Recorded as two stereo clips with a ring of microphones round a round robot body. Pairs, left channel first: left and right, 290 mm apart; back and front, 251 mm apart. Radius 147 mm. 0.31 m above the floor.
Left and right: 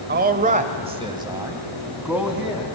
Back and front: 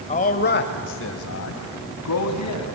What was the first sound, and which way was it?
A man speaking, 130° right.